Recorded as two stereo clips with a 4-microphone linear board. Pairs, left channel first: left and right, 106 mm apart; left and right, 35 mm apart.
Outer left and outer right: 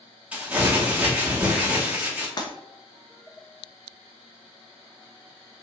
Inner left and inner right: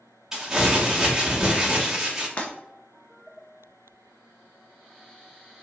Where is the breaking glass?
40° left (ahead or behind), 0.5 m.